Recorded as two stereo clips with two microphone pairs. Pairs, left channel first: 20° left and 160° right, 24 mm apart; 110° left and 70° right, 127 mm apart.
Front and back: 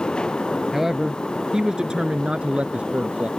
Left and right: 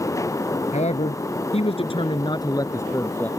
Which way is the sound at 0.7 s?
125° left.